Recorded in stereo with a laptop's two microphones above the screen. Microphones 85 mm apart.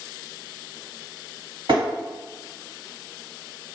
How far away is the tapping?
About 1.6 m.